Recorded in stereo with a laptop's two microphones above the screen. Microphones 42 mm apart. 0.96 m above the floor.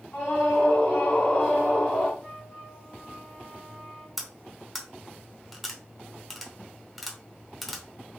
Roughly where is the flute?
Left.